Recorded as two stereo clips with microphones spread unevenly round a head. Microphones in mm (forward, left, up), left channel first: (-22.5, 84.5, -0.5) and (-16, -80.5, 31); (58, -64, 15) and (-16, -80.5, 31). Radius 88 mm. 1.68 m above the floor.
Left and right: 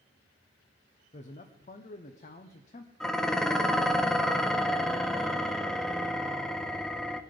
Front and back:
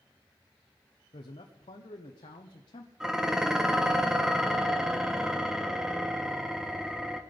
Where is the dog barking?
No dog barking in this recording.